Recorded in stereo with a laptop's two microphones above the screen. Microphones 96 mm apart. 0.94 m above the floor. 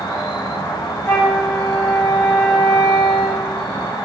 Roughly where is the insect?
Left.